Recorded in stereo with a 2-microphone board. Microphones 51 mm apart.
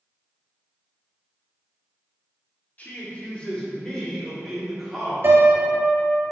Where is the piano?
45° right (ahead or behind), 1.7 m.